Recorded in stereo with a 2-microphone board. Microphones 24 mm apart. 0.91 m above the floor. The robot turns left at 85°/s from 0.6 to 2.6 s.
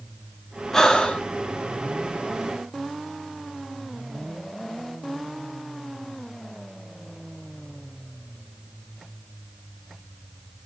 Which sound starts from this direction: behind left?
Breathing, at 0.7 s.